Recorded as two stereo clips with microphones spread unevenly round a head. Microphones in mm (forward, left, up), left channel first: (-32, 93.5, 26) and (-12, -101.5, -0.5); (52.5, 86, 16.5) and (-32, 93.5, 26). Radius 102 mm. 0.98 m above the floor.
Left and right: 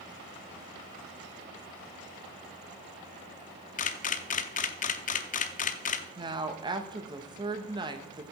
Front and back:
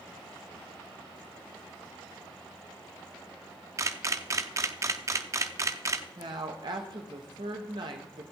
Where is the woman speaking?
145° right, 1.1 m.